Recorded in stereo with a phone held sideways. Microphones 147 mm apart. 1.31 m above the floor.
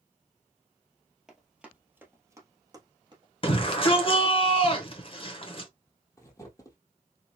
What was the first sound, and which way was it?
Running footsteps, centre (ahead or behind).